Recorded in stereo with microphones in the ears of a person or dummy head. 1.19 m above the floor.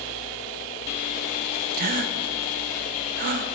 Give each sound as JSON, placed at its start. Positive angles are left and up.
{"t": 1.7, "sound": "a gasp", "side_deg": -55, "distance_m": 0.7}